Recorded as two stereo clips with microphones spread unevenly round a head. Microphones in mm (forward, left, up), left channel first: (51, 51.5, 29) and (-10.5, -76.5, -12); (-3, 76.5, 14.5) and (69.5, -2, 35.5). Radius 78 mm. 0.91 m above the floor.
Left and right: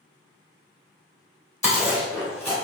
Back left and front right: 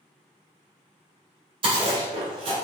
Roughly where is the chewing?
Ahead.